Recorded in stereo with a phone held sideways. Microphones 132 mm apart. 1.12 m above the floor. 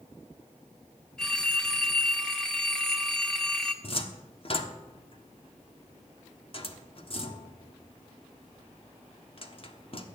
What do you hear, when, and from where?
1.2 s a phone ringing: 5° left (ahead or behind), 1.4 m
3.8 s a cupboard door: 45° left (ahead or behind), 1.2 m